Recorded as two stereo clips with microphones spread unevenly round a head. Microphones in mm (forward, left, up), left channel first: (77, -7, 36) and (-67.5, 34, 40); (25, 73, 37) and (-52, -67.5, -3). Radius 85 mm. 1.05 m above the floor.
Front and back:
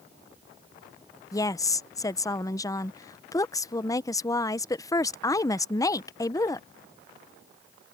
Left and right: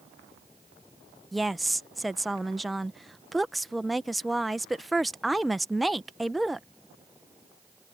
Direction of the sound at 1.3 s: 55° right.